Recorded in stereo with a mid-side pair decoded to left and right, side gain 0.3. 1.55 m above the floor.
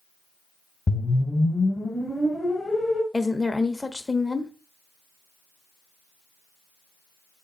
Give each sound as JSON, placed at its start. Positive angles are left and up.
{"t": 0.9, "sound": "a whoosh", "azimuth_deg": 40, "distance_m": 1.3}
{"t": 3.1, "sound": "a woman speaking", "azimuth_deg": 25, "distance_m": 0.9}